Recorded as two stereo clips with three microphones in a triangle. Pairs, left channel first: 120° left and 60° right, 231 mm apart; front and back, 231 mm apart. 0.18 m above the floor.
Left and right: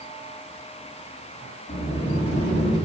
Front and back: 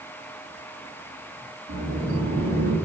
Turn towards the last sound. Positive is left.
turn(degrees=160)